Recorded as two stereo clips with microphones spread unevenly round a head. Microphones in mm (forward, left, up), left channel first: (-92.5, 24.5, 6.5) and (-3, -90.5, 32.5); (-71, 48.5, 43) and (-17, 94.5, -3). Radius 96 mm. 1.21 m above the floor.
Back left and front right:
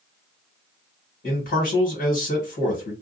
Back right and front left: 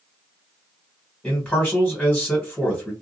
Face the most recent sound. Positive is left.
turn(degrees=130)